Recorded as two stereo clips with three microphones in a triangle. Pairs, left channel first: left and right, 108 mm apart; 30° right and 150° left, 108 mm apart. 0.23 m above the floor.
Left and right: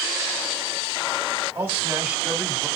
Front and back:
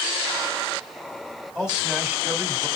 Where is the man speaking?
120° right, 1.1 m; by 2.7 s straight behind, 1.1 m.